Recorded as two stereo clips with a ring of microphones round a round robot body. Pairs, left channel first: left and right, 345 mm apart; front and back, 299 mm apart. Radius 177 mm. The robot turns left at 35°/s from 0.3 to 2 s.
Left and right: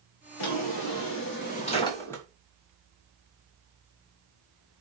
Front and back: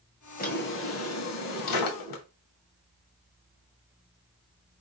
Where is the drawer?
65° left, 1.2 m; by 2.2 s 5° left, 1.2 m.